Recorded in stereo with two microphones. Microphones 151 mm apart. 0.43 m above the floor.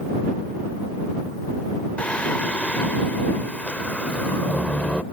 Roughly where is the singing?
Centre.